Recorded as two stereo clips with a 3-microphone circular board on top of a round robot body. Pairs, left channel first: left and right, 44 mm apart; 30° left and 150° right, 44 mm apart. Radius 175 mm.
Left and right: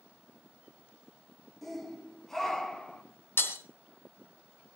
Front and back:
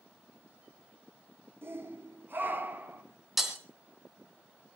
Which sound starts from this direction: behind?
A shout, at 1.6 s.